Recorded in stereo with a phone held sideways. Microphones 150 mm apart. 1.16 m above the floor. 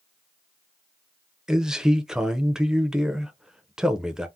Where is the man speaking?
5° right (ahead or behind), 0.6 m.